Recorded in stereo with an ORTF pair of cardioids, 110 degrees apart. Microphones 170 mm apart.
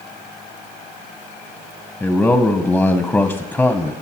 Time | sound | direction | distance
2.0 | a man speaking | 5° left | 0.6 m